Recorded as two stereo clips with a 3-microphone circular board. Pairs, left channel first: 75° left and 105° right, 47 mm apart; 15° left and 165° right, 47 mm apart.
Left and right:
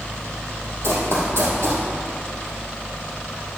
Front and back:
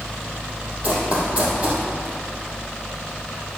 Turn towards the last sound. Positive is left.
turn(degrees=-110)